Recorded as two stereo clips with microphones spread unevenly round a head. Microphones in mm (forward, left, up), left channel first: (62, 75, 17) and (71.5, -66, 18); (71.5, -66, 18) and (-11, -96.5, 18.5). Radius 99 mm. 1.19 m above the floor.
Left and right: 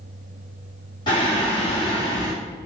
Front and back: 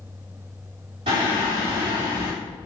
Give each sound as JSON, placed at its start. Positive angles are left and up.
{"t": 1.1, "sound": "singing", "azimuth_deg": 160, "distance_m": 2.5}